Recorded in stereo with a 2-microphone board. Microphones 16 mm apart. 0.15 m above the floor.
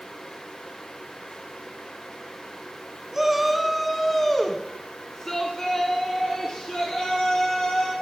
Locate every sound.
3.1 s a shout: 15° right (ahead or behind), 1.6 m; by 7.9 s 60° left (ahead or behind), 3 m